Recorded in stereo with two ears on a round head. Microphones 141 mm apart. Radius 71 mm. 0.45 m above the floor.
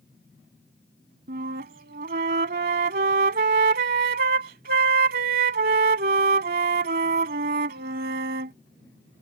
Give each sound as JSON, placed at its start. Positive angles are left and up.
{"t": 1.3, "sound": "a flute", "side_deg": -60}